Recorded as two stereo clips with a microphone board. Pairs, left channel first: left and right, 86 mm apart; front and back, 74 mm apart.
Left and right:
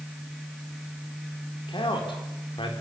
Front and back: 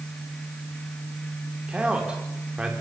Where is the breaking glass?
No breaking glass in this recording.